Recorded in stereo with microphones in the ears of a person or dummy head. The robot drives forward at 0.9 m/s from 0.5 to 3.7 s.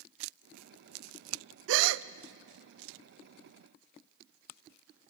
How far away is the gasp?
About 0.5 m.